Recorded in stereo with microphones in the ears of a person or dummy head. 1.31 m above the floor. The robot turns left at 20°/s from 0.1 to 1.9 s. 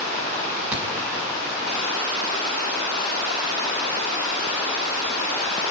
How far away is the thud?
About 5.5 m.